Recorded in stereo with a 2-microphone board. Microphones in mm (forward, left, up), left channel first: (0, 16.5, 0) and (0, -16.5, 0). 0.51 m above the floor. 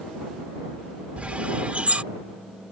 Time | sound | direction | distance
1.2 | a bird | 45° right (ahead or behind) | ?